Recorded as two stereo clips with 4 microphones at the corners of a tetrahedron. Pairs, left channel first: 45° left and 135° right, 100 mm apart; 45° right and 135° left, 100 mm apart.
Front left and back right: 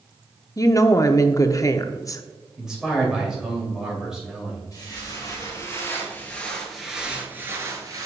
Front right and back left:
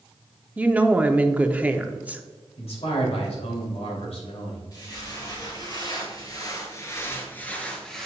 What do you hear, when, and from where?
0.6 s a woman speaking: 70° left, 0.5 m
2.6 s a man speaking: 50° right, 2.5 m
4.7 s footsteps: straight ahead, 2.5 m; by 8.1 s 130° right, 1.5 m